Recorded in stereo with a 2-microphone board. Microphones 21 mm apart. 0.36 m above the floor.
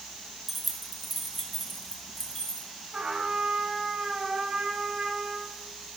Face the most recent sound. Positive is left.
turn(degrees=-35)  # may be behind; listen again after turning